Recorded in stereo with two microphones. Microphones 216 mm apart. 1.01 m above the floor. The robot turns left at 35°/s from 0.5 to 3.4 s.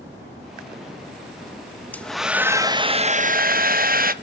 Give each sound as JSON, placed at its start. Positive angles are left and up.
{"t": 1.9, "sound": "a hair dryer", "azimuth_deg": 10, "distance_m": 0.7}